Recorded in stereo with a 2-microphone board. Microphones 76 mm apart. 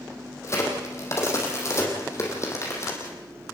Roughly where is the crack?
Left.